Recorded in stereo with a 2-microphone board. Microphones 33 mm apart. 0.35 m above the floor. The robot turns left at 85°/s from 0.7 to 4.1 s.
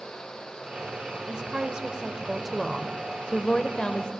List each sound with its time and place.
1.3 s a woman speaking: 65° right, 0.9 m; by 4.1 s 55° left, 0.9 m